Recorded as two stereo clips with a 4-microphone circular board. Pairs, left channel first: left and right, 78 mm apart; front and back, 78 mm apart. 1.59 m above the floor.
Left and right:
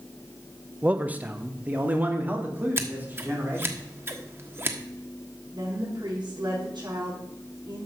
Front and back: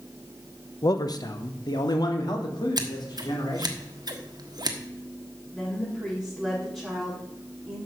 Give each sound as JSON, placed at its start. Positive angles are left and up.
{"t": 0.8, "sound": "a man speaking", "azimuth_deg": -20, "distance_m": 0.9}
{"t": 2.8, "sound": "scissors", "azimuth_deg": -150, "distance_m": 1.3}
{"t": 5.5, "sound": "a woman speaking", "azimuth_deg": -80, "distance_m": 5.0}